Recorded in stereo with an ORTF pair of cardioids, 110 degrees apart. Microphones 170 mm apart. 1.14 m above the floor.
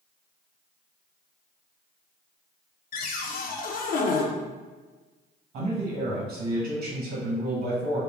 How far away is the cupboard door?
About 0.6 m.